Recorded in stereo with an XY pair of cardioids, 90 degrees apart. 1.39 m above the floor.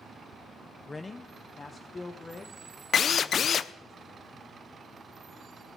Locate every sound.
0.9 s a man speaking: 25° left, 0.5 m; by 3.9 s 35° left, 2 m
2.9 s a drill: 60° left, 0.5 m